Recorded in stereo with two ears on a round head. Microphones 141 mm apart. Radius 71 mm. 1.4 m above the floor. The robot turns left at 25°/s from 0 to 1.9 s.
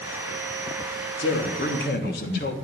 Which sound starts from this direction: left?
A man speaking, at 1.2 s.